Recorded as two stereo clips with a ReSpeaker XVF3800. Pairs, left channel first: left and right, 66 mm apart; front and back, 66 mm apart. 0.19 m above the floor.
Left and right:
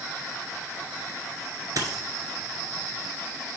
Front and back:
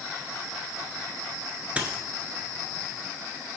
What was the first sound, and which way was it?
A dropped coin, 110° right.